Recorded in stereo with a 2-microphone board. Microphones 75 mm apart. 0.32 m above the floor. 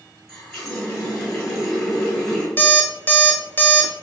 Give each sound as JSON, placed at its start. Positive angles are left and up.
{"t": 0.3, "sound": "a running tap", "side_deg": 0, "distance_m": 1.7}
{"t": 2.6, "sound": "an alarm clock", "side_deg": 25, "distance_m": 0.6}